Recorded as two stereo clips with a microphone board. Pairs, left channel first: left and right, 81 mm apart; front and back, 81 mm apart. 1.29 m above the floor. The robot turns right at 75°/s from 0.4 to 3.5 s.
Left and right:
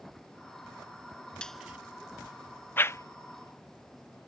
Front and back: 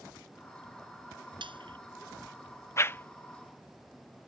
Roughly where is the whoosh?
Ahead left.